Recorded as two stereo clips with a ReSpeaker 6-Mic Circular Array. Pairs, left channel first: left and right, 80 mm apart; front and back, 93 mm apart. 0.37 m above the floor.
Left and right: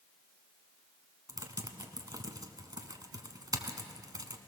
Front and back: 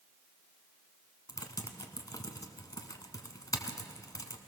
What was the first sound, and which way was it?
Typing on a keyboard, 50° right.